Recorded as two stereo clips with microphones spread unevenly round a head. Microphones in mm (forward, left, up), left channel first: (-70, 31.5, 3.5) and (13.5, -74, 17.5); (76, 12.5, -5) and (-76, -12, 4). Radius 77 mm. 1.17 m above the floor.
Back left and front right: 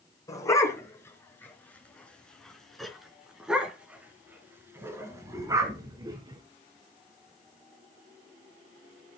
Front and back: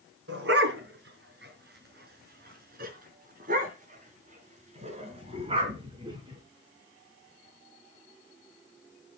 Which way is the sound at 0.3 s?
165° right.